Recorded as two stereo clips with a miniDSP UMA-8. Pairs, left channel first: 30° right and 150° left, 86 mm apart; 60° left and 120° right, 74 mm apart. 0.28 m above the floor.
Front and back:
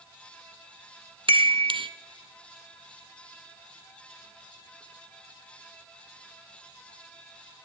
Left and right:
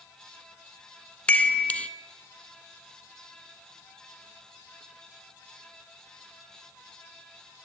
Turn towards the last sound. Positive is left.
turn(degrees=135)